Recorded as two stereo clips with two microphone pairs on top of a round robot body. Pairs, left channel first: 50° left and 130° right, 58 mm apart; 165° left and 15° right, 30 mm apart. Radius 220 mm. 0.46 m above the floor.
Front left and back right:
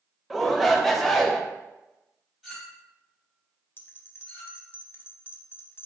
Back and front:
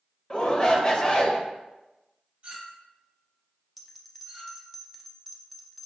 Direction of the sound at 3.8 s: 80° left.